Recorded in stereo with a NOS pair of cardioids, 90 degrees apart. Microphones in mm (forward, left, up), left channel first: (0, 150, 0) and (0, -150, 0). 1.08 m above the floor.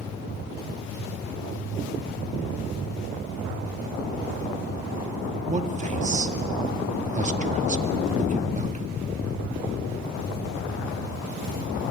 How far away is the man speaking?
About 2 m.